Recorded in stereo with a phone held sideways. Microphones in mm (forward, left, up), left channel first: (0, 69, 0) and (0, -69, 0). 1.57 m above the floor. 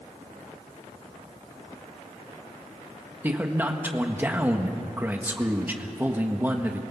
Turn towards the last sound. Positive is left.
turn(degrees=-15)  # may be behind; listen again after turning